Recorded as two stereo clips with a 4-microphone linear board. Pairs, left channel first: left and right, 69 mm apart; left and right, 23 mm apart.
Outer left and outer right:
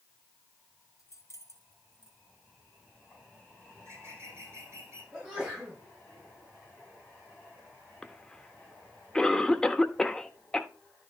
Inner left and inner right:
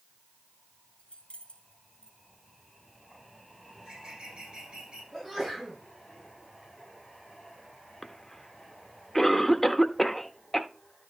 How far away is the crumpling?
No crumpling in this recording.